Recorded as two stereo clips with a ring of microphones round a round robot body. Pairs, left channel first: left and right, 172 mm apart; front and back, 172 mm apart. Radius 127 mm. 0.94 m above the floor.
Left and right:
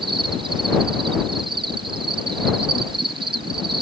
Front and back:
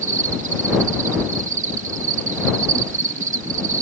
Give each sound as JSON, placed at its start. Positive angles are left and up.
{"t": 0.0, "sound": "an insect", "azimuth_deg": -150}